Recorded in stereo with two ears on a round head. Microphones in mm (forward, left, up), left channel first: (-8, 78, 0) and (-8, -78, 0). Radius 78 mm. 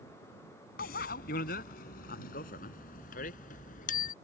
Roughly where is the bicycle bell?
Left.